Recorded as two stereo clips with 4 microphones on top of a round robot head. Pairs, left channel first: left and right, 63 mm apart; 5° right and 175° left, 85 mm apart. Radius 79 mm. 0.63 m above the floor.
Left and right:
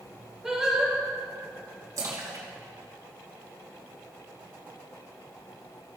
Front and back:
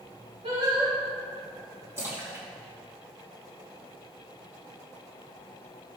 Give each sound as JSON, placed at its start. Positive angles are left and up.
{"t": 0.4, "sound": "singing", "azimuth_deg": -170, "distance_m": 3.5}
{"t": 2.0, "sound": "a splash", "azimuth_deg": -120, "distance_m": 3.0}